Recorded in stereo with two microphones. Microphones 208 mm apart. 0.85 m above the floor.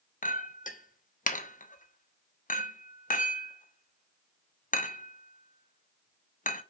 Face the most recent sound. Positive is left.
turn(degrees=40)  # may be behind; listen again after turning